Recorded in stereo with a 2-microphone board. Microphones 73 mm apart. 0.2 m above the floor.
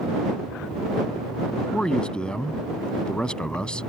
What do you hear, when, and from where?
1.7 s a man speaking: 10° left (ahead or behind)